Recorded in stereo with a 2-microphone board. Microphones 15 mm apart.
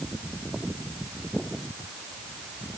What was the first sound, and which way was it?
Only background noise.